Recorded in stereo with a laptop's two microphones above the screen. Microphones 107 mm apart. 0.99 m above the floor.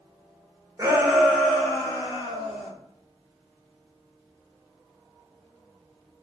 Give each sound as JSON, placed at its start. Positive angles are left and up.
{"t": 0.8, "sound": "a shout", "side_deg": -25, "distance_m": 0.6}